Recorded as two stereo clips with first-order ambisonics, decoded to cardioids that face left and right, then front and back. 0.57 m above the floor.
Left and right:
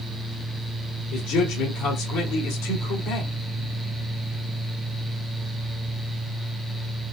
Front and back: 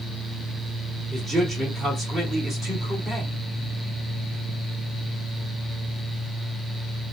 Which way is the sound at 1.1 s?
110° left.